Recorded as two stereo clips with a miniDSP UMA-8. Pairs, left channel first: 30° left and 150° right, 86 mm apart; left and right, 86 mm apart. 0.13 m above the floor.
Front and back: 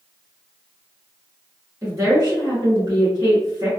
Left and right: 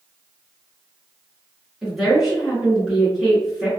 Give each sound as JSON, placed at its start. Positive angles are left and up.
{"t": 1.8, "sound": "a woman speaking", "azimuth_deg": -170, "distance_m": 1.3}